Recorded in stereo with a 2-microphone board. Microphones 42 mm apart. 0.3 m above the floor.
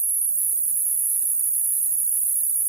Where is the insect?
10° right (ahead or behind), 1.5 m.